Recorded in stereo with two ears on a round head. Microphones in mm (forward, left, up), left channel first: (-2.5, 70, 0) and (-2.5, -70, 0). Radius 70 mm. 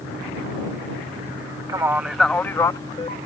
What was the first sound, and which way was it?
A man speaking, 20° right (ahead or behind).